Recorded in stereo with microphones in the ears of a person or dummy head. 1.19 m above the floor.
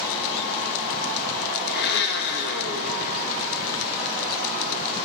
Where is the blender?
55° left (ahead or behind), 1.3 m.